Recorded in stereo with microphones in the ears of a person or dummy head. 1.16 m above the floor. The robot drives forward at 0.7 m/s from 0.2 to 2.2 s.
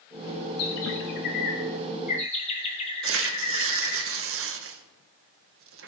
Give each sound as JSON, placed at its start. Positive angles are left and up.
{"t": 0.6, "sound": "a bird", "side_deg": 75, "distance_m": 1.1}
{"t": 3.0, "sound": "tearing paper", "side_deg": -65, "distance_m": 0.9}